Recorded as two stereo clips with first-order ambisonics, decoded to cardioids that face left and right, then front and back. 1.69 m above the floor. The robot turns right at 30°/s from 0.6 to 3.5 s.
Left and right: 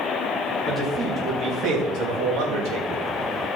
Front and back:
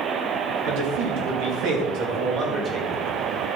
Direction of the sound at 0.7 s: 175° right.